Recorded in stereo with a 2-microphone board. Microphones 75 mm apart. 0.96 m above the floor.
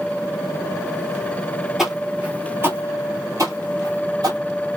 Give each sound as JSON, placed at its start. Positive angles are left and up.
{"t": 1.8, "sound": "footsteps", "side_deg": -5, "distance_m": 1.2}